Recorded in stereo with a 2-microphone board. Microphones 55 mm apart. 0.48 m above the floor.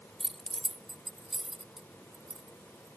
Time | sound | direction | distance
0.2 | keys jangling | 5° right (ahead or behind) | ?